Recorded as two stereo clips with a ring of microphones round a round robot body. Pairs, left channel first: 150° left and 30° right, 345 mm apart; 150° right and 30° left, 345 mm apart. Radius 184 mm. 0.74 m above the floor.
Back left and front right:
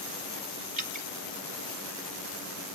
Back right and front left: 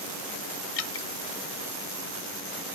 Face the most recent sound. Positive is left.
turn(degrees=-100)